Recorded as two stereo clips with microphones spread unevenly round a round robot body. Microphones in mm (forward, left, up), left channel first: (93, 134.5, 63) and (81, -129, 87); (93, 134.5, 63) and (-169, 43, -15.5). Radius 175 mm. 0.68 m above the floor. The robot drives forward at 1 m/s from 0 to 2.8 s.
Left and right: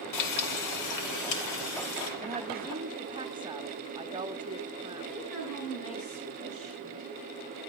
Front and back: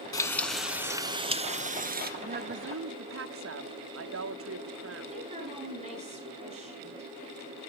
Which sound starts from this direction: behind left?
A woman speaking, at 5.1 s.